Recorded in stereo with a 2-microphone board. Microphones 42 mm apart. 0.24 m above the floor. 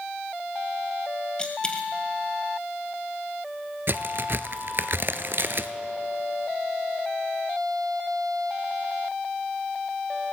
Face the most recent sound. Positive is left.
turn(degrees=-60)  # may be behind; listen again after turning